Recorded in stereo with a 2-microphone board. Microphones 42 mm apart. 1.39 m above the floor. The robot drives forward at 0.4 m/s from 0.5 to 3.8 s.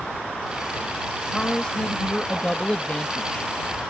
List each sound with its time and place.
1.3 s a man speaking: 20° left (ahead or behind); by 3.5 s 30° left (ahead or behind)